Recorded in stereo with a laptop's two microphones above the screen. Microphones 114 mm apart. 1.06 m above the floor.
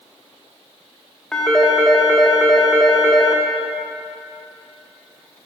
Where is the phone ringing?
5° left (ahead or behind), 1.0 m.